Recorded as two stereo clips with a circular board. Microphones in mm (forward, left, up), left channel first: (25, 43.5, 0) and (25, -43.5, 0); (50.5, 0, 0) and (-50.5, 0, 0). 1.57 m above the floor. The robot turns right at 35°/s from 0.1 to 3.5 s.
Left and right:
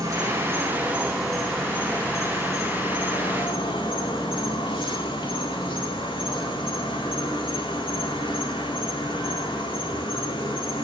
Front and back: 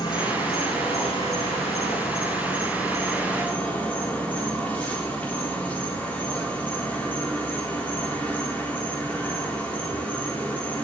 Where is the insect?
40° right, 3.5 m; by 10.8 s 75° left, 3.5 m.